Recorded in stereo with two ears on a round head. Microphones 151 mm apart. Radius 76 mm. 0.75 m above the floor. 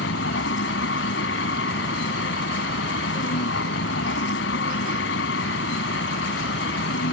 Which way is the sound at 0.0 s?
85° left.